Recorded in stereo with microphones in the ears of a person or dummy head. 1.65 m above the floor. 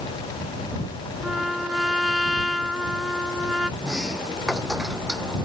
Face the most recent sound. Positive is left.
turn(degrees=-5)  # may be behind; listen again after turning